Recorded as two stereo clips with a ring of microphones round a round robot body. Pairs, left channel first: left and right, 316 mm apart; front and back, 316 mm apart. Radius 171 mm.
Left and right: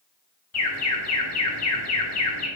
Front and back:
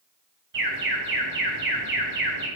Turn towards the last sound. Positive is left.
turn(degrees=125)